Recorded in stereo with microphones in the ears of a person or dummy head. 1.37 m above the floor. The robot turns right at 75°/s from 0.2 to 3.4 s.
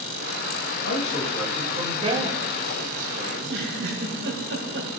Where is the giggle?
60° right (ahead or behind), 3 m; by 5.0 s 65° right (ahead or behind), 3 m.